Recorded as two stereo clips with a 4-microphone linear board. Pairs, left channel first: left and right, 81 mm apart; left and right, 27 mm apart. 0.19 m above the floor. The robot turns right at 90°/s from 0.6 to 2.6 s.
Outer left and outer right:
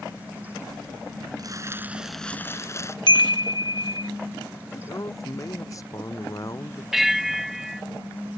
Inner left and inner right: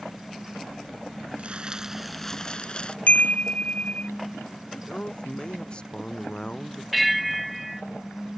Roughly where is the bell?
Centre.